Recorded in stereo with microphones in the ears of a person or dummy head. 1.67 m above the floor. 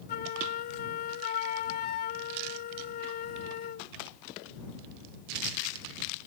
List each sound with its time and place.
0.1 s a flute: 45° left (ahead or behind)